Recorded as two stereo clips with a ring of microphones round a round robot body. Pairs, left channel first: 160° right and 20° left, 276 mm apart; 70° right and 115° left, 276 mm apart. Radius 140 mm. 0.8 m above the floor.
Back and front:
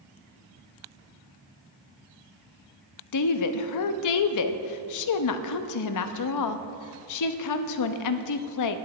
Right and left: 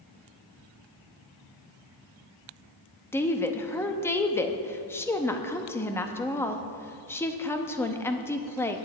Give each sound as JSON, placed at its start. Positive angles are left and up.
{"t": 3.1, "sound": "a woman speaking", "azimuth_deg": -150, "distance_m": 0.7}